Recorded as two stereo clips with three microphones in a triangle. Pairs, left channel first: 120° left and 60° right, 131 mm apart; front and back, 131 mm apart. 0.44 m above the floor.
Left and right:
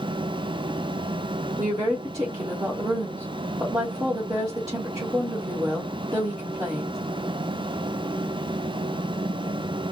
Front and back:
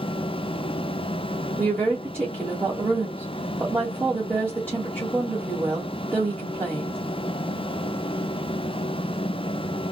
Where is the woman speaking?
110° right, 1.6 m.